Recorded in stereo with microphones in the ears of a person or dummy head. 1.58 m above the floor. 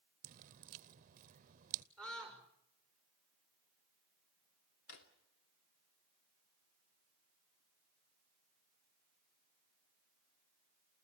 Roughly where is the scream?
Centre.